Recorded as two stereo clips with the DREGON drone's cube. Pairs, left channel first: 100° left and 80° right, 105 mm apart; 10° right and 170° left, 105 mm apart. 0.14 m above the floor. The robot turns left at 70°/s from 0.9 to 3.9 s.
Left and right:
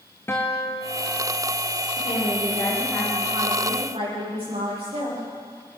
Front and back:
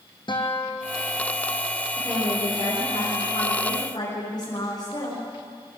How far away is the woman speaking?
About 9.5 m.